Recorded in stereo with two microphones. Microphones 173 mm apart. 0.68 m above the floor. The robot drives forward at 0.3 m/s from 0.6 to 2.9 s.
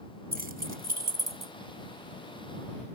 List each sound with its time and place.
0.3 s keys jangling: 60° right (ahead or behind); by 1.5 s 55° right (ahead or behind)